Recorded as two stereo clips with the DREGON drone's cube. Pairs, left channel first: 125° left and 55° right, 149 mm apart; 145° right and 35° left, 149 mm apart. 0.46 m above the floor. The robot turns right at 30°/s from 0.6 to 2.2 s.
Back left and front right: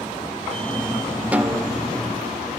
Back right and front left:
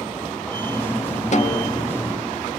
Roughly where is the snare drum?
Behind right.